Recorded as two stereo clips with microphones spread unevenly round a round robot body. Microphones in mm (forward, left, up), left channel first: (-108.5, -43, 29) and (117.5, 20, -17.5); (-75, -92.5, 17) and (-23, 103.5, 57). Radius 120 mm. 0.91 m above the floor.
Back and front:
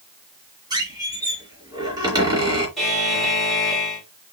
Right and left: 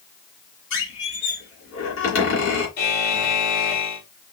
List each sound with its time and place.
0.7 s a squeak: 60° right, 2.5 m
2.8 s a buzzer: 70° right, 2.5 m